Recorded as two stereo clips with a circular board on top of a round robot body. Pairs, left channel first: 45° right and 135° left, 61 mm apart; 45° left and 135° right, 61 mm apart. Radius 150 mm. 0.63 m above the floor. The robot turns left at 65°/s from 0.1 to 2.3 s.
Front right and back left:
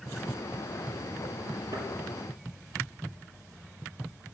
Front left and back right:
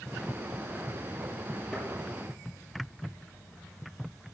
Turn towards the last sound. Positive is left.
turn(degrees=90)